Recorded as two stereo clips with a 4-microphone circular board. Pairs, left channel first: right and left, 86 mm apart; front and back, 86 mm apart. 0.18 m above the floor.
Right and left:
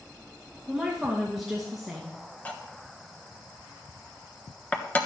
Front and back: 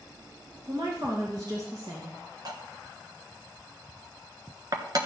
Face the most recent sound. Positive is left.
turn(degrees=-160)